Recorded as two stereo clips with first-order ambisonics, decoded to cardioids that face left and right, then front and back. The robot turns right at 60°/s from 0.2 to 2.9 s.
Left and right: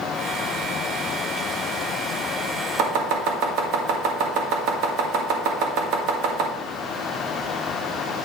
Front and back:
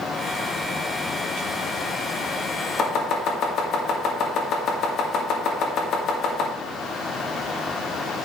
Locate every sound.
2.8 s chopping: 60° right, 2 m; by 6.5 s 55° right, 2 m